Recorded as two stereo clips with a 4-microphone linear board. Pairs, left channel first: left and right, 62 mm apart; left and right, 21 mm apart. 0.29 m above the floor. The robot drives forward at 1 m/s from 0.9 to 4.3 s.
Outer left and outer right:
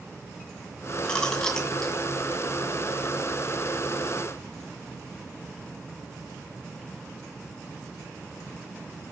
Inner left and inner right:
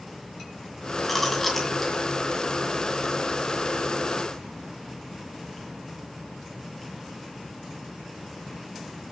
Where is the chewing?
15° left (ahead or behind), 2 m; by 2.0 s 10° left (ahead or behind), 3 m.